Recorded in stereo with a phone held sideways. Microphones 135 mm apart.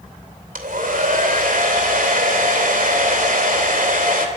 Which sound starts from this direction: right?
A hair dryer, at 0.6 s.